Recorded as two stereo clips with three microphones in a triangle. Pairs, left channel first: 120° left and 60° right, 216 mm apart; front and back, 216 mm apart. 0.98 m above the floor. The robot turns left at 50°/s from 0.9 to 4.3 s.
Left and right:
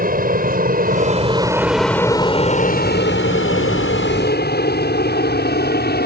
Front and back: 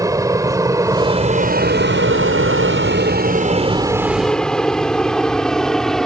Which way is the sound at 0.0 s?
105° right.